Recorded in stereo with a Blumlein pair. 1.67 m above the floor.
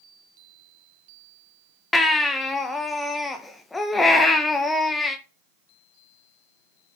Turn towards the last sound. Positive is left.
turn(degrees=10)